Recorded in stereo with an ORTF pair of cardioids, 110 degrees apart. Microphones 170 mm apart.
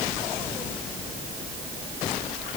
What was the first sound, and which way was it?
Only background noise.